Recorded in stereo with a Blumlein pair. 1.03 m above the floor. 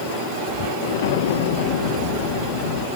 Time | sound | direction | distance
0.8 | an explosion | 55° left | 0.8 m